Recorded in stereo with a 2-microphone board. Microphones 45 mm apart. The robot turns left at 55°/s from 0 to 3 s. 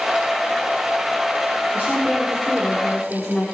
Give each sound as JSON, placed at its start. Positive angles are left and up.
{"t": 1.7, "sound": "a woman speaking", "azimuth_deg": -125, "distance_m": 4.0}